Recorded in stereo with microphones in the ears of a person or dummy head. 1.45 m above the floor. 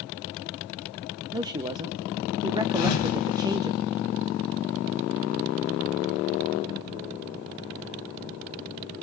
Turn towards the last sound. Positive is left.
turn(degrees=45)  # may be behind; listen again after turning